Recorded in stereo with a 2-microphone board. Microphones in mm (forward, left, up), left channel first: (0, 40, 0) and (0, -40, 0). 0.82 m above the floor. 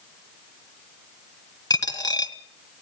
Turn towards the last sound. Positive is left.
turn(degrees=55)  # may be behind; listen again after turning